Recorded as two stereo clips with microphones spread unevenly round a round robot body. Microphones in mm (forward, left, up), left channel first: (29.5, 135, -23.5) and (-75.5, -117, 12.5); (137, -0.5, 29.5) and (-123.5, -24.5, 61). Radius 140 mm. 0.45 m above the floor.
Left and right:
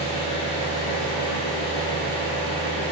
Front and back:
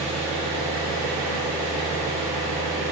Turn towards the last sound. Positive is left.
turn(degrees=-5)